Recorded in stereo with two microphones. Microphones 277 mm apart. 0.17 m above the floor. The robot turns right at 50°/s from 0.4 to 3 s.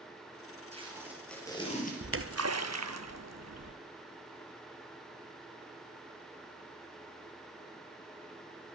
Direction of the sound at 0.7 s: 25° right.